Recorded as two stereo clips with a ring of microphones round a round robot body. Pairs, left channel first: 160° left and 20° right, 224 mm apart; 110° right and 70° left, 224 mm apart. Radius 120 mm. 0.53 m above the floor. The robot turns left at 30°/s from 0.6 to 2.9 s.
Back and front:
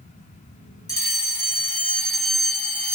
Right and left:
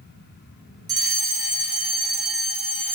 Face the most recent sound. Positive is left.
turn(degrees=50)